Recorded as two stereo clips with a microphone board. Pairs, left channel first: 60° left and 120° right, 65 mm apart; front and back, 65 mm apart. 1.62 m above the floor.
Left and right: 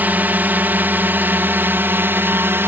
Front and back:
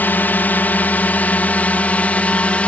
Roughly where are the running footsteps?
No running footsteps in this recording.